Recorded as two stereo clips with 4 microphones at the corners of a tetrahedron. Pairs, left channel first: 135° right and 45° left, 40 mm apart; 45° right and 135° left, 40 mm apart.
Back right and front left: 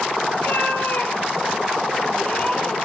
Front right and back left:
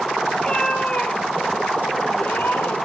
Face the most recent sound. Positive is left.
turn(degrees=-70)